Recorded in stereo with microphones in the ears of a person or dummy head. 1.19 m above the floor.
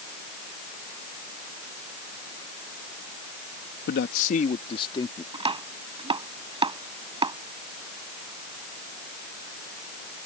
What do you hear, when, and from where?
3.9 s a man speaking: 60° left (ahead or behind); by 5.2 s 20° left (ahead or behind)
5.3 s chopping: 25° right (ahead or behind)